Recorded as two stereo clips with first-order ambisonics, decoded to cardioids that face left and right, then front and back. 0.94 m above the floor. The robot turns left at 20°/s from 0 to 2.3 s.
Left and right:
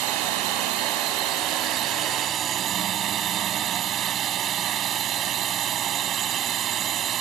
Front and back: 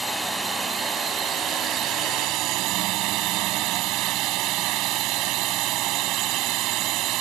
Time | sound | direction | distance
0.0 | a drone | 95° right | ?